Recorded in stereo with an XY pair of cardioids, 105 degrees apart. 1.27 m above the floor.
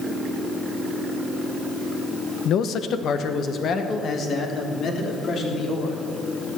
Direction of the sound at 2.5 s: 70° left.